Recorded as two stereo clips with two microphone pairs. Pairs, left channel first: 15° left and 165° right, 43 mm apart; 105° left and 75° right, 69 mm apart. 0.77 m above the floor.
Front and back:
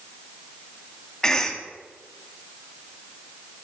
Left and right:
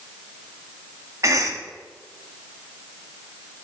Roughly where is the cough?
Ahead right.